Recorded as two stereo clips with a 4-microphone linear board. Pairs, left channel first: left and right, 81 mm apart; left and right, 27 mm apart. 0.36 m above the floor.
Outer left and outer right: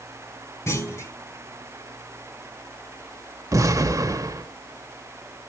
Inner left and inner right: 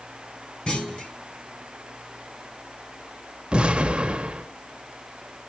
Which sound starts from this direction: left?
A clunk, at 0.7 s.